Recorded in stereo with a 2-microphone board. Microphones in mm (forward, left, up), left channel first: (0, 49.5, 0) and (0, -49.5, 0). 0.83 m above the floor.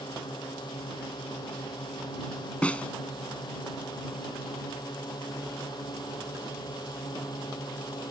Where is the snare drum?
15° left (ahead or behind).